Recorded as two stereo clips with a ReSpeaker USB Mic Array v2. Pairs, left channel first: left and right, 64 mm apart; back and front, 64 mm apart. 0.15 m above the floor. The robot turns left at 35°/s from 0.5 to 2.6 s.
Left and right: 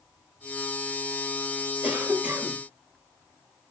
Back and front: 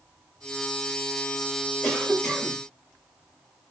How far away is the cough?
About 1.2 m.